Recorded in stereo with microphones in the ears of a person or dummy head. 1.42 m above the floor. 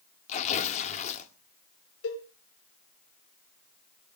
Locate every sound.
0.3 s tearing paper: 40° left (ahead or behind), 1.9 m
2.0 s a cowbell: 80° left, 5.5 m